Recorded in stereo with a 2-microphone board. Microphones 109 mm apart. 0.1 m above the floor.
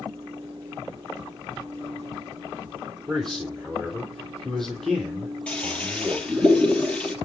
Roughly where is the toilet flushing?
Centre.